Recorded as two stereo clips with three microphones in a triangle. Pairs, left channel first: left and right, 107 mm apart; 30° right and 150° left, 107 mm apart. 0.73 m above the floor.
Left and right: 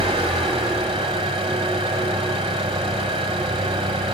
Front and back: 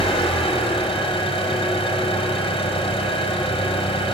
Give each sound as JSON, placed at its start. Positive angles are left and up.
{"t": 0.0, "sound": "an engine running", "azimuth_deg": -70, "distance_m": 1.6}